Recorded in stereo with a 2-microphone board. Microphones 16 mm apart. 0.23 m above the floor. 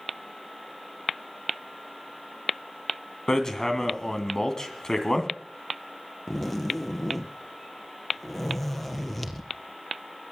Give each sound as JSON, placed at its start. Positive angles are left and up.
{"t": 3.3, "sound": "hammering", "side_deg": 35, "distance_m": 2.0}
{"t": 6.3, "sound": "a zipper", "side_deg": 10, "distance_m": 1.6}